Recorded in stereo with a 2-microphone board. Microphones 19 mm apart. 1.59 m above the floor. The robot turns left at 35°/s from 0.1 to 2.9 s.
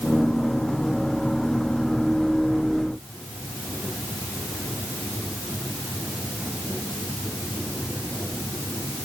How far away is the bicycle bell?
No bicycle bell in this recording.